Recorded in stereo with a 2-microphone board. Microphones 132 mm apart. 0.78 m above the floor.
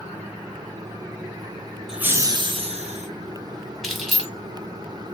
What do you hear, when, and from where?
1.9 s laughter: 5° right (ahead or behind), 0.5 m; by 3.1 s 60° right (ahead or behind), 1.0 m
3.8 s keys jangling: centre (ahead or behind), 1.0 m